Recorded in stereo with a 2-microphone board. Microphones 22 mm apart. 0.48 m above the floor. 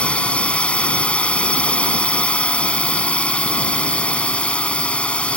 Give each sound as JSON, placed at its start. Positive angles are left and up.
{"t": 0.0, "sound": "a drone", "side_deg": 75}